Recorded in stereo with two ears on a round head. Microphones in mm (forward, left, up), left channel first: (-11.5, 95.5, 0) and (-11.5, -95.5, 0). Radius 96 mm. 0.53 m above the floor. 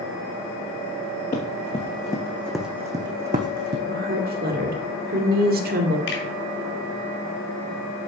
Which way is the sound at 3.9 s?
45° right (ahead or behind).